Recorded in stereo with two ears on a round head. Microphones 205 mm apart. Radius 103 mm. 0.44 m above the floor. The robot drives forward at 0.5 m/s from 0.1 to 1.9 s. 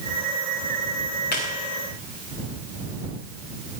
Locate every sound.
1.3 s a squeak: 45° left (ahead or behind), 4 m